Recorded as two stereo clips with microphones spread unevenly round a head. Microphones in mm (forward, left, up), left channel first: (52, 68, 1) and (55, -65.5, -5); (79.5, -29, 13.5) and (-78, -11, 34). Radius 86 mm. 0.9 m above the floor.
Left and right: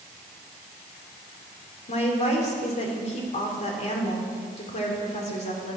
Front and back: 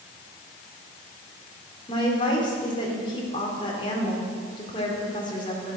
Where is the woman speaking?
55° left, 3 m.